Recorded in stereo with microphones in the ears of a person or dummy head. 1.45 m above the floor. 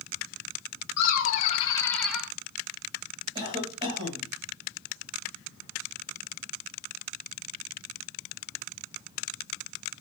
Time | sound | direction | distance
1.0 | laughter | 55° left (ahead or behind) | 0.9 m
3.4 | a cough | 30° right (ahead or behind) | 1.5 m